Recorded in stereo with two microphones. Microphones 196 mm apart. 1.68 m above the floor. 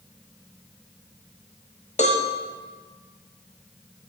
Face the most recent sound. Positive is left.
turn(degrees=35)  # may be behind; listen again after turning